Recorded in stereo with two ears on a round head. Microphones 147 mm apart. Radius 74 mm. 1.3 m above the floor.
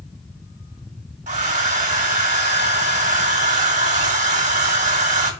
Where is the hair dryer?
45° right (ahead or behind), 1.5 m.